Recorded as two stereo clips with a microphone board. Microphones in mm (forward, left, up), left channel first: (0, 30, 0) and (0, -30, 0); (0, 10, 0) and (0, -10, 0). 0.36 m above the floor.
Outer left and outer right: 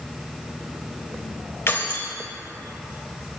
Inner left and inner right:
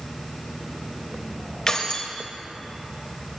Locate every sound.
1.7 s keys jangling: 40° left (ahead or behind), 1.0 m